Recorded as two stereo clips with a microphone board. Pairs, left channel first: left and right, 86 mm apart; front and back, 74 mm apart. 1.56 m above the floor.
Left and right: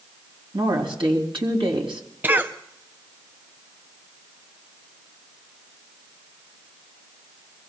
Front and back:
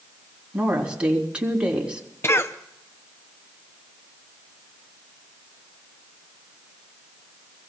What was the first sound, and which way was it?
A woman speaking, 105° right.